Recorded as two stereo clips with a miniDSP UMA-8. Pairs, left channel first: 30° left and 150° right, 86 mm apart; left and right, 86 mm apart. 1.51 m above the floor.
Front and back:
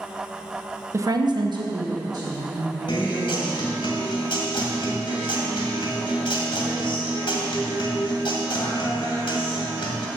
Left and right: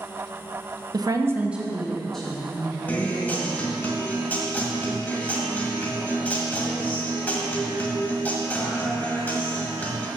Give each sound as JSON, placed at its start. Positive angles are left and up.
{"t": 0.9, "sound": "a woman speaking", "azimuth_deg": -100, "distance_m": 0.8}
{"t": 2.9, "sound": "a guitar", "azimuth_deg": 25, "distance_m": 1.9}